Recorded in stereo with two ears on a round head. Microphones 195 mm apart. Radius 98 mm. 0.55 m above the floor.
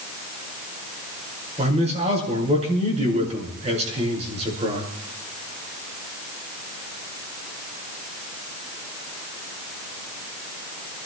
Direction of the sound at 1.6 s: 30° right (ahead or behind).